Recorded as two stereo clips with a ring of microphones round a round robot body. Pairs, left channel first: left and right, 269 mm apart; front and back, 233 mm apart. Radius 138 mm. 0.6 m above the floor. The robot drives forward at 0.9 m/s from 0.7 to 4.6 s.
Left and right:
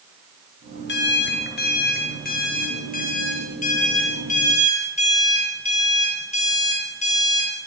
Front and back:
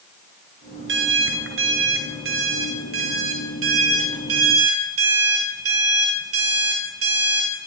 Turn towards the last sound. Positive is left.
turn(degrees=155)